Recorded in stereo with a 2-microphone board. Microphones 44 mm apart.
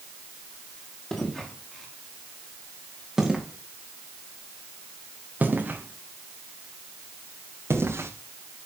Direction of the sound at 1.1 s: 5° left (ahead or behind).